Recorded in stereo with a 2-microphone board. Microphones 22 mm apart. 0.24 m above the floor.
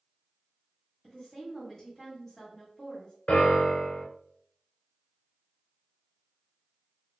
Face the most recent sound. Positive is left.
turn(degrees=70)  # may be behind; listen again after turning